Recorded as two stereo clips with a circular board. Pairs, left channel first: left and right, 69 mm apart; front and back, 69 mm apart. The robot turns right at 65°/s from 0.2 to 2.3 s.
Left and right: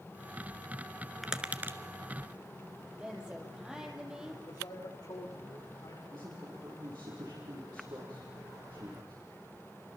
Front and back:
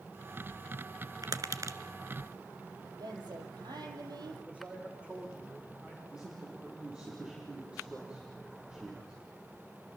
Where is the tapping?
175° right, 1.3 m; by 1.8 s 140° right, 1.3 m.